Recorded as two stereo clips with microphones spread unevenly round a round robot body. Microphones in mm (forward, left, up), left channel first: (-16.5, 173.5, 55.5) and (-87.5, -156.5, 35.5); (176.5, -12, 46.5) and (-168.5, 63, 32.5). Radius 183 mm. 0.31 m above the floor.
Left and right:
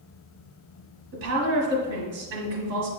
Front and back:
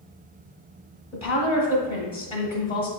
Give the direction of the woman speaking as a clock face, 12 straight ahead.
3 o'clock.